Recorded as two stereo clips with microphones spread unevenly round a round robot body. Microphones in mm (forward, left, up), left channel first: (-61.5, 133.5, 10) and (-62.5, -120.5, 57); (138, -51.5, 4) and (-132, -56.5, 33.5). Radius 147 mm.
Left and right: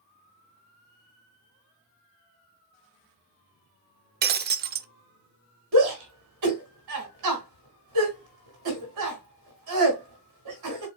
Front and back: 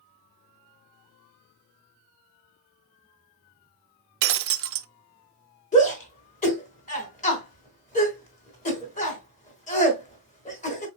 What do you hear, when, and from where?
4.2 s breaking glass: 145° right, 0.6 m
5.7 s a shout: 60° right, 3 m